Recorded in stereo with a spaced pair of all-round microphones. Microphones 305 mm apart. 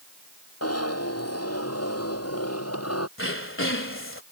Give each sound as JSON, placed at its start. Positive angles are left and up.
{"t": 0.6, "sound": "a zipper", "side_deg": 50}
{"t": 3.2, "sound": "throat clearing", "side_deg": 40}